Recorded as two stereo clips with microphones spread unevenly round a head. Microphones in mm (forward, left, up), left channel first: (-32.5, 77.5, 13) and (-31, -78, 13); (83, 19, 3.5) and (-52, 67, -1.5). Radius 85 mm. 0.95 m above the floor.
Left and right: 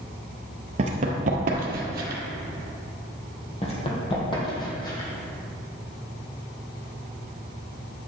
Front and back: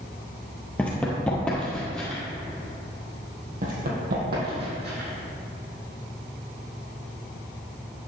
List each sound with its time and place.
0.8 s running footsteps: 95° right, 1.1 m; by 2.2 s 105° right, 1.6 m
3.6 s running footsteps: 140° left, 2 m; by 5.1 s 155° left, 3 m